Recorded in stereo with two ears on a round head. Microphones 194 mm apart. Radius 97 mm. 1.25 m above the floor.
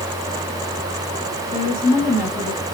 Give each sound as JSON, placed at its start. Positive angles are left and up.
{"t": 1.5, "sound": "a woman speaking", "side_deg": 20, "distance_m": 8.0}